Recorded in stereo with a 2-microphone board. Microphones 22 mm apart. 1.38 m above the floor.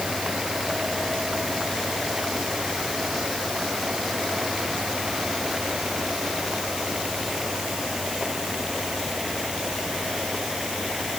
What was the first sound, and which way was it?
Only background noise.